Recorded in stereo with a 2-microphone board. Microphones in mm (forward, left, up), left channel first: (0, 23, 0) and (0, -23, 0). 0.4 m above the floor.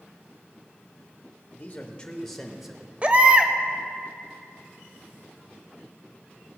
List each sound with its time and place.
1.5 s a man speaking: 40° left (ahead or behind), 1.0 m; by 2.9 s 10° right (ahead or behind), 1.4 m
3.0 s a baby crying: 30° right (ahead or behind), 0.6 m